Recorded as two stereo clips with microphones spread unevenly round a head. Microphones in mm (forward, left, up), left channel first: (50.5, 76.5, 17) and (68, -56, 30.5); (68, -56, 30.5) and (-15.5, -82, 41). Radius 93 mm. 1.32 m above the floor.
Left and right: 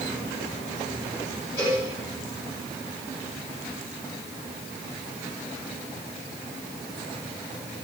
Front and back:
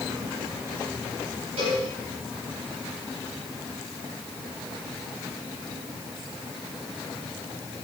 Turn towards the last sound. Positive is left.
turn(degrees=170)